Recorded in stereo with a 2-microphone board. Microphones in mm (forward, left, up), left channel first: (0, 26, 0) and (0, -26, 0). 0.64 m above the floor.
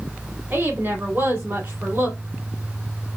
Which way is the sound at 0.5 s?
45° right (ahead or behind).